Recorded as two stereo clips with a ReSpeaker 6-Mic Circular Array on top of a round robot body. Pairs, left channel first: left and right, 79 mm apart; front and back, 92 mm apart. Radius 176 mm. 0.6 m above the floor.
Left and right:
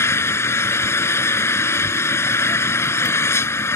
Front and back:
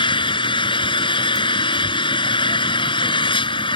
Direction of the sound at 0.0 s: 30° left.